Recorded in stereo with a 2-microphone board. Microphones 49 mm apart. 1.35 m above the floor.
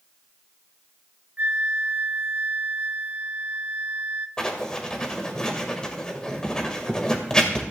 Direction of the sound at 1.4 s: 40° right (ahead or behind).